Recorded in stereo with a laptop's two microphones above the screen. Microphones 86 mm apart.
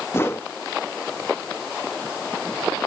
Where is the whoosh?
30° left (ahead or behind), 0.8 m.